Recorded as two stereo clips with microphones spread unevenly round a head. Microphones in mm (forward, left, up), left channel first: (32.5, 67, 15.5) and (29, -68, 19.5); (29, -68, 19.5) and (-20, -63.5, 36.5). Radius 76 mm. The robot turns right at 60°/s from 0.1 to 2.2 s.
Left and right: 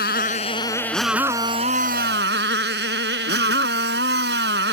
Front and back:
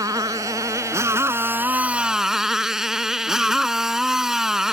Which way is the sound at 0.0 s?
120° left.